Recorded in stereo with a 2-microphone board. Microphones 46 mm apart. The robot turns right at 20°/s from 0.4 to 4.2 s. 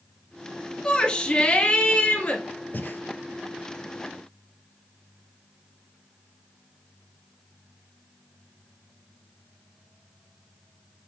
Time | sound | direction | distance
0.8 | a shout | 25° left | 2 m
2.7 | breathing | 45° left (ahead or behind) | 0.7 m